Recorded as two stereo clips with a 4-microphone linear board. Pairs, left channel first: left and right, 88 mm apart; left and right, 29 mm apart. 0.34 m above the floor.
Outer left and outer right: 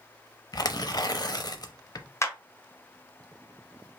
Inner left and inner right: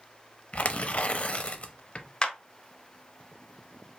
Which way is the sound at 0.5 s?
50° left (ahead or behind).